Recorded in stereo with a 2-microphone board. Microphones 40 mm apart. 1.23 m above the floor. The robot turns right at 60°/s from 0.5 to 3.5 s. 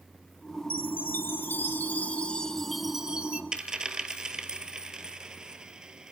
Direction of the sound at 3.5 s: 20° right (ahead or behind).